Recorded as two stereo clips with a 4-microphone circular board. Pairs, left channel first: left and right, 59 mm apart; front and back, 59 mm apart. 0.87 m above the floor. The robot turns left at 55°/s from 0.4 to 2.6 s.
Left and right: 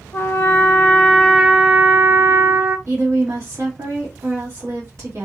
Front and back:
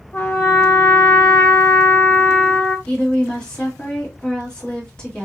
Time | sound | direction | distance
0.1 | a trumpet | 45° left | 0.8 m
2.9 | a woman speaking | 75° right | 1.8 m